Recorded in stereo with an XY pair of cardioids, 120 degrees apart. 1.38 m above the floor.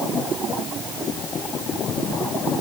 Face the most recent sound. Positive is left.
No sound to turn to.